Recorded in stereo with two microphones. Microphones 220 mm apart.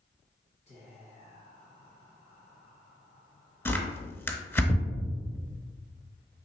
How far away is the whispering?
About 1.1 m.